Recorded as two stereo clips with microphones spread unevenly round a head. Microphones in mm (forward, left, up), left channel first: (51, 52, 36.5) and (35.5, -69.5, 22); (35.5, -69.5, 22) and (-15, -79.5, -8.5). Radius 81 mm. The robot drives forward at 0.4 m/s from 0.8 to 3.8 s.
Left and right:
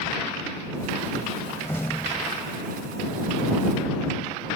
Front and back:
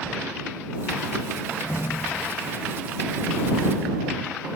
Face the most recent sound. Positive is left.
turn(degrees=15)